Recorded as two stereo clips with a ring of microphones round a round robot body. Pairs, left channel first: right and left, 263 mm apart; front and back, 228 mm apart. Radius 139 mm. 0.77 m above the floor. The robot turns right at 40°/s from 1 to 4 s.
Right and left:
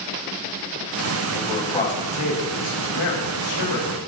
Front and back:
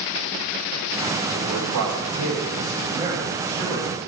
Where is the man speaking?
170° right, 4.5 m; by 4.0 s 60° right, 4.5 m.